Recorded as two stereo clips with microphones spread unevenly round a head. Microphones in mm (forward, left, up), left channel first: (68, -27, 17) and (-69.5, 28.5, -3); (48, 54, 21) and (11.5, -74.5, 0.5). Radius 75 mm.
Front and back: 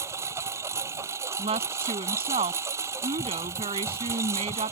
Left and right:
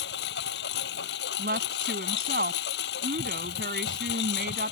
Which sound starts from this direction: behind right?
A woman speaking, at 1.4 s.